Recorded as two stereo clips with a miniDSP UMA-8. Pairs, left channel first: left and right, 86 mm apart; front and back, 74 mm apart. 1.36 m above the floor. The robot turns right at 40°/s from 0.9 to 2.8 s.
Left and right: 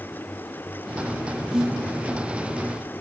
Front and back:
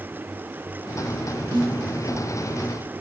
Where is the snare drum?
175° right, 3.5 m; by 1.8 s 160° right, 3.5 m.